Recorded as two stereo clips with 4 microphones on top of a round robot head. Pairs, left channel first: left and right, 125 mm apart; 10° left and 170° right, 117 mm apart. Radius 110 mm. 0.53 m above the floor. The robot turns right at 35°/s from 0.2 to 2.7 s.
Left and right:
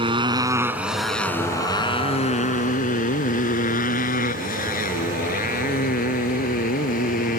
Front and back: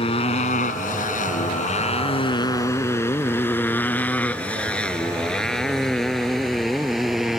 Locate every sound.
0.0 s a motorcycle: 40° right; by 7.4 s 105° left